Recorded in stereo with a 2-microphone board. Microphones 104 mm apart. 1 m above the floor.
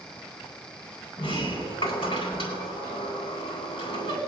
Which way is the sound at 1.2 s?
60° left (ahead or behind).